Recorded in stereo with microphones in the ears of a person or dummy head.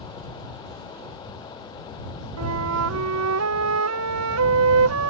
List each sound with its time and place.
2.4 s a flute: 80° right